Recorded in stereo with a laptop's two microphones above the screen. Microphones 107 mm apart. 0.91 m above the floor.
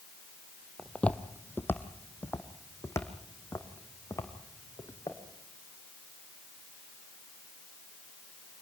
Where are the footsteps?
10° left (ahead or behind), 1.4 m; by 5.2 s 30° left (ahead or behind), 5 m.